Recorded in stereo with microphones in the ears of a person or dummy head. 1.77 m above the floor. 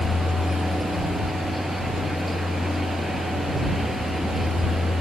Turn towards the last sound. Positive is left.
turn(degrees=-5)  # may be behind; listen again after turning